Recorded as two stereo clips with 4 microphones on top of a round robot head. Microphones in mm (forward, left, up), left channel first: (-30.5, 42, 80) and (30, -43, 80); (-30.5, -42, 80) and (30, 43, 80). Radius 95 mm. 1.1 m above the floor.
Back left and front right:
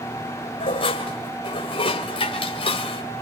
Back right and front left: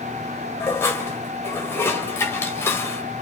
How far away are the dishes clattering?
About 3 m.